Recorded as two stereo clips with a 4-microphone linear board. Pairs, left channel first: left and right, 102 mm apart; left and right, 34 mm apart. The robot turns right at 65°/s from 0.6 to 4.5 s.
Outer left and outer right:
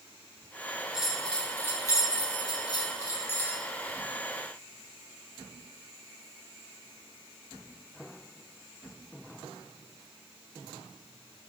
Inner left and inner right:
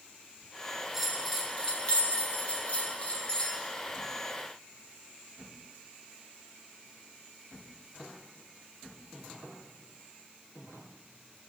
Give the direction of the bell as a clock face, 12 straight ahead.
12 o'clock.